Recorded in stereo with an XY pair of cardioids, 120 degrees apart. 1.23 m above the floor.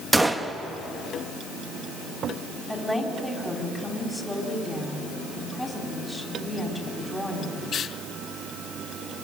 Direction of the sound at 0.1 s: 10° right.